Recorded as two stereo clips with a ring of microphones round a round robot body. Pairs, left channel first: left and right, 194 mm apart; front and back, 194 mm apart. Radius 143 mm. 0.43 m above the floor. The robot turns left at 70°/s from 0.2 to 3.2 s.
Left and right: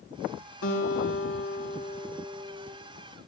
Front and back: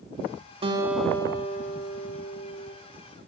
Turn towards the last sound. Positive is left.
turn(degrees=-65)